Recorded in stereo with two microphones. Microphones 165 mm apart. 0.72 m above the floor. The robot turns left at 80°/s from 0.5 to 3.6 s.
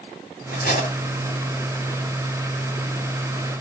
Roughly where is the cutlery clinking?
Left.